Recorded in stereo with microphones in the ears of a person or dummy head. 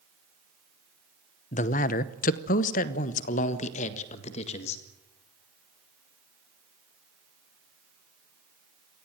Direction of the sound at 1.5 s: 40° left (ahead or behind).